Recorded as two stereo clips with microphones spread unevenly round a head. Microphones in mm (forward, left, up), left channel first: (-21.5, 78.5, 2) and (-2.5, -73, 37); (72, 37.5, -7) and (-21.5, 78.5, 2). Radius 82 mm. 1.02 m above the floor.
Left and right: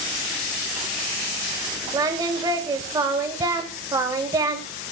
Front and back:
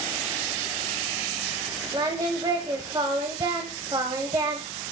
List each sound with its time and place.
1.9 s singing: 145° right, 1.5 m